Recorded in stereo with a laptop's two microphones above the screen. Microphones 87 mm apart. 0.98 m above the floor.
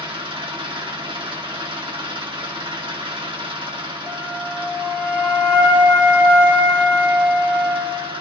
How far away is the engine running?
About 1.7 m.